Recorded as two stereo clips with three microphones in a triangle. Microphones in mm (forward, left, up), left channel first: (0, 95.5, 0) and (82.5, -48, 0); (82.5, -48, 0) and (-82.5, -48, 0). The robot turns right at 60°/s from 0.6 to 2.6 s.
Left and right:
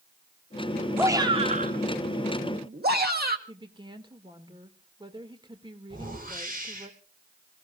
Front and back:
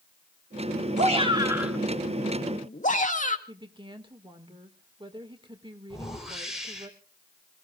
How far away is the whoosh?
About 4.5 m.